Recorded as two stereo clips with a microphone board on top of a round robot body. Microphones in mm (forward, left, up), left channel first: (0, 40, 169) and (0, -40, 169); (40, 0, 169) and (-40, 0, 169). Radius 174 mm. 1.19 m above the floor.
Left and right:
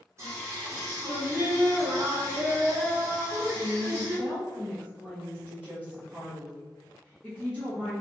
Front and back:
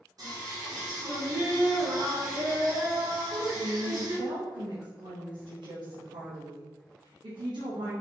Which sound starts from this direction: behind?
A woman speaking, at 3.2 s.